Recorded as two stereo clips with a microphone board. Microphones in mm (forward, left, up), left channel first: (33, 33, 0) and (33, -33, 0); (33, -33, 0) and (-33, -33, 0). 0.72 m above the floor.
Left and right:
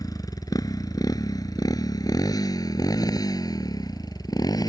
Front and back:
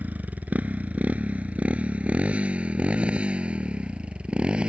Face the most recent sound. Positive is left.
turn(degrees=105)